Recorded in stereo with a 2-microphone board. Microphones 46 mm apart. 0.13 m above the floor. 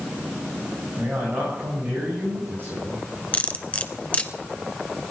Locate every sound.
1.0 s a man speaking: 45° right (ahead or behind), 7 m
3.3 s cutlery clinking: 30° left (ahead or behind), 1.0 m